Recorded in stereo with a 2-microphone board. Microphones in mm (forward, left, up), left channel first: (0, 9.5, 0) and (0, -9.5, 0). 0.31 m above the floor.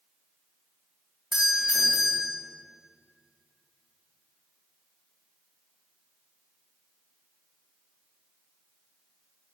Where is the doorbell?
35° right (ahead or behind), 2 m.